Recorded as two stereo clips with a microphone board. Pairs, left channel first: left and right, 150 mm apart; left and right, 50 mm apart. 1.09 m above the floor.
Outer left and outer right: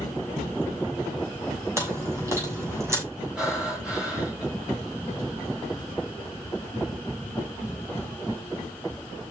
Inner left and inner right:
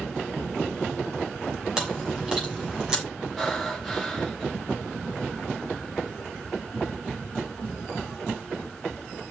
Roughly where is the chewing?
Centre.